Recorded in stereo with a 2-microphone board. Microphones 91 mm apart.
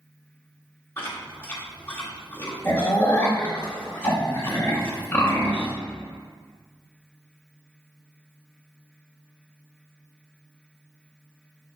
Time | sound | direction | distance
1.0 | chewing | 25° left (ahead or behind) | 1.6 m